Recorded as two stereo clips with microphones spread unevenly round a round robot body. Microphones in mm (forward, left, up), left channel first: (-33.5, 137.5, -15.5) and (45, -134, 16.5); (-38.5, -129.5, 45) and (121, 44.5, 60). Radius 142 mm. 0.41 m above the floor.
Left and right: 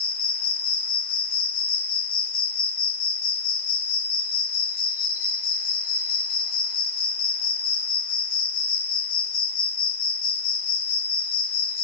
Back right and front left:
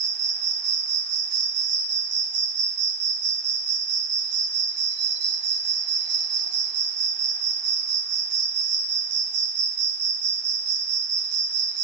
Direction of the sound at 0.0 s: 70° left.